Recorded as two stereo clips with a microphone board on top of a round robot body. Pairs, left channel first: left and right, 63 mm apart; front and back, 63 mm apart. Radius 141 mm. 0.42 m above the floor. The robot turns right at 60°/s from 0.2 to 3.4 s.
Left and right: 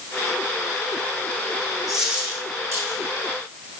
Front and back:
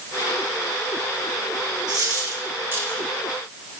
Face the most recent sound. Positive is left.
turn(degrees=-85)